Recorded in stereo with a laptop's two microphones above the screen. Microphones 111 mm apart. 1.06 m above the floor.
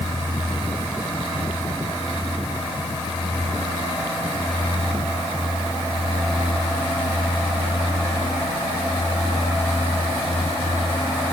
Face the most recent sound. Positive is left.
No sound to turn to.